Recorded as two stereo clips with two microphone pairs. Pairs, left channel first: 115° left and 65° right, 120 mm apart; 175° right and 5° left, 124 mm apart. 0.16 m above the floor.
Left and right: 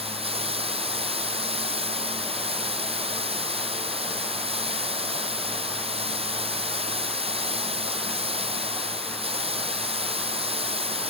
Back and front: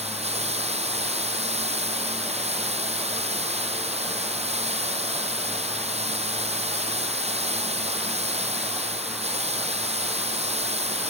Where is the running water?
30° right, 1.0 m.